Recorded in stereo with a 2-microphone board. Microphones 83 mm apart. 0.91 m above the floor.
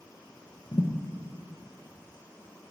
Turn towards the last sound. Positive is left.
turn(degrees=55)  # may be behind; listen again after turning